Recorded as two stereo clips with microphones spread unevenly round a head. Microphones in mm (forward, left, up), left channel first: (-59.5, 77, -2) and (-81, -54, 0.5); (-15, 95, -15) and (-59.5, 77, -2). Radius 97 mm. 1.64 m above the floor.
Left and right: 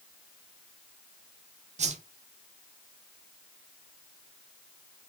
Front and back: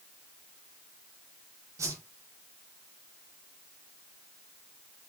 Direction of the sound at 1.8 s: 130° right.